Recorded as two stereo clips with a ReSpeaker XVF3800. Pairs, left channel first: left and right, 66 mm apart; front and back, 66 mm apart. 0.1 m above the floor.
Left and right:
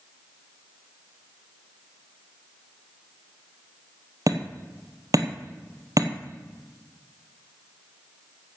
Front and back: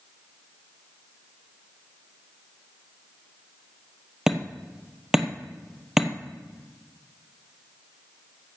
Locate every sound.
4.3 s hammering: 95° right, 1.4 m